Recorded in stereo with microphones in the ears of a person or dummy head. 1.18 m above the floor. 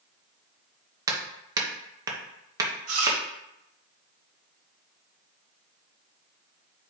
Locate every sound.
1.1 s hammering: 10° right (ahead or behind), 1.2 m
2.9 s chewing: 50° right (ahead or behind), 1.4 m